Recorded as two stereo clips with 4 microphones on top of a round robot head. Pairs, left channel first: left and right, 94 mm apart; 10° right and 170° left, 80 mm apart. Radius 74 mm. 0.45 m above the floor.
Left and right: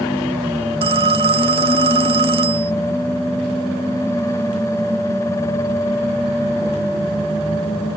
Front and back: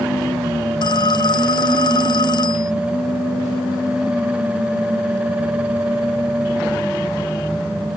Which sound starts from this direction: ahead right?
A phone ringing, at 0.8 s.